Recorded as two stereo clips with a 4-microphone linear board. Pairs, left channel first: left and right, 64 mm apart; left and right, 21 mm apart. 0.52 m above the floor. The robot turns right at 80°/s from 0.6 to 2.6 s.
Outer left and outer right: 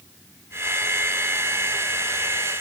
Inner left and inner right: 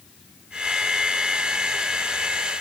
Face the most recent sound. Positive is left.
No sound to turn to.